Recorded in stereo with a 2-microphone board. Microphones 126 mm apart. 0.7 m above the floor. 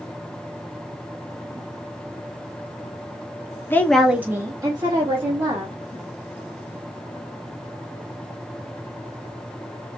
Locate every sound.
3.7 s a woman speaking: 20° left (ahead or behind), 0.6 m; by 5.8 s 40° right (ahead or behind), 1.5 m